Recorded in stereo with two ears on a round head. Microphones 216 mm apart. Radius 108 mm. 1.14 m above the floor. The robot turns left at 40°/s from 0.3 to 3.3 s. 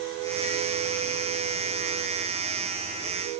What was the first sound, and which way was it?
Only background noise.